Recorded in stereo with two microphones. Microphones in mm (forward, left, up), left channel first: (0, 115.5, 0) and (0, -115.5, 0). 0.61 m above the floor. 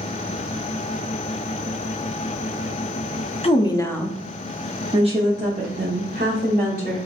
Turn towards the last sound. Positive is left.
turn(degrees=-40)  # may be behind; listen again after turning